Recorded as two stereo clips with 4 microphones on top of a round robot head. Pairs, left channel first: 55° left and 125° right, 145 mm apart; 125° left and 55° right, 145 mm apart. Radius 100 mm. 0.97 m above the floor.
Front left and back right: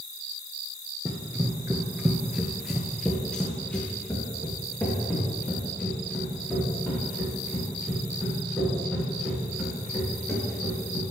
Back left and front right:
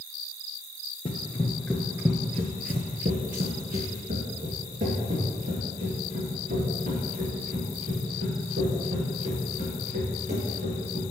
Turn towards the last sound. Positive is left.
turn(degrees=-20)